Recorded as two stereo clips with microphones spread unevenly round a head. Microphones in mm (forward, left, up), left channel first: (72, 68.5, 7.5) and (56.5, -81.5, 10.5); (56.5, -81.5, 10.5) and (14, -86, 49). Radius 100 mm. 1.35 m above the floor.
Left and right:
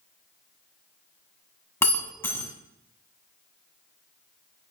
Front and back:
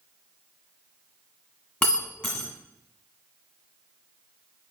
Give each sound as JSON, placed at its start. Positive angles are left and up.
{"t": 1.8, "sound": "breaking glass", "azimuth_deg": 145, "distance_m": 1.3}